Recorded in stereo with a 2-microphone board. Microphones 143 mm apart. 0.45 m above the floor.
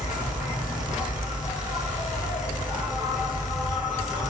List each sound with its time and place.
0.0 s an insect: 60° left (ahead or behind), 1.7 m